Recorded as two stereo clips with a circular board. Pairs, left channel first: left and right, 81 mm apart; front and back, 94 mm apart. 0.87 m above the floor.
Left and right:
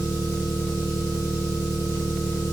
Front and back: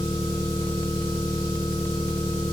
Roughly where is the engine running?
Behind left.